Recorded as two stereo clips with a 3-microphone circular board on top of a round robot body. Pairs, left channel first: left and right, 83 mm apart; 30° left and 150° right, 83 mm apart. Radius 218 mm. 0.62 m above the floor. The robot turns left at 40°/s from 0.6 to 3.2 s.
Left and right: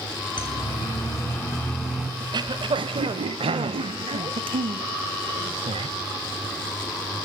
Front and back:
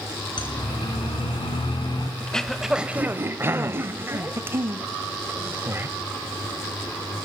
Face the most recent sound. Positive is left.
turn(degrees=-85)